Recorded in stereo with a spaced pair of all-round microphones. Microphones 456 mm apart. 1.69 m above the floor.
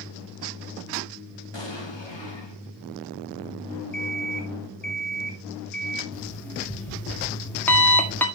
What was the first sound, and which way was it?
An explosion, 70° left (ahead or behind).